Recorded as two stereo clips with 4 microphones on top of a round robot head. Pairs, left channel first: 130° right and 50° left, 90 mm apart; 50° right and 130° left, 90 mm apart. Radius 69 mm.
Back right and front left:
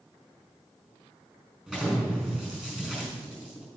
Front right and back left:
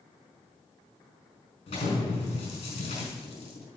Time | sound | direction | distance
1.7 | an explosion | 30° right | 5 m